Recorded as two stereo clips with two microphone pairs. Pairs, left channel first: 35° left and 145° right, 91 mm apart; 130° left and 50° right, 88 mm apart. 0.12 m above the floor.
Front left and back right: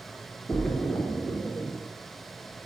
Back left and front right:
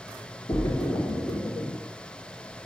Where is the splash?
105° left, 0.6 m.